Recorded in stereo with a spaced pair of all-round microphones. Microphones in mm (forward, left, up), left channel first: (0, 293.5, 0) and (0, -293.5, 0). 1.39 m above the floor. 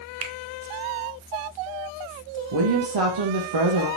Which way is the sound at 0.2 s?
60° right (ahead or behind).